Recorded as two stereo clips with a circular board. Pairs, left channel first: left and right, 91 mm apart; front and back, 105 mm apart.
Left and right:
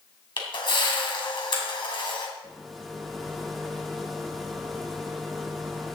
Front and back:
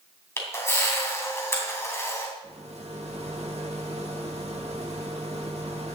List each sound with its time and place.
0.4 s a camera shutter: 65° left, 3 m
2.4 s a rattle: straight behind, 1.6 m